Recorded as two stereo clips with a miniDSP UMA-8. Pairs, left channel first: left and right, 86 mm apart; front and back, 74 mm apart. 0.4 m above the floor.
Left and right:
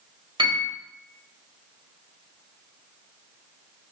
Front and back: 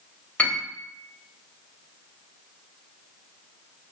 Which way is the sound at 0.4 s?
70° right.